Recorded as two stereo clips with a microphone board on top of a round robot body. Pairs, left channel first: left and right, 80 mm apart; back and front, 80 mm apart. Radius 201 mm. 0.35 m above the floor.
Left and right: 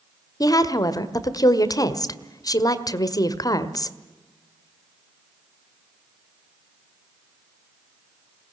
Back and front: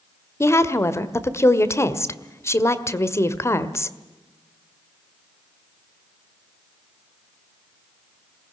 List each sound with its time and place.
0.4 s a woman speaking: 125° left, 1.8 m